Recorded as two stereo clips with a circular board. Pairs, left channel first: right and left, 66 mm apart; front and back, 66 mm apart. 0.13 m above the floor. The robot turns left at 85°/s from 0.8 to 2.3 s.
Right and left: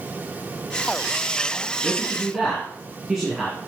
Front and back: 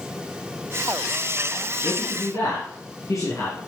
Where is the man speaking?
40° left, 3 m; by 3.6 s straight ahead, 3 m.